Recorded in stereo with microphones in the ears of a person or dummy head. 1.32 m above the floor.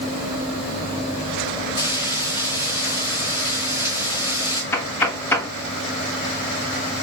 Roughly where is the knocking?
Centre.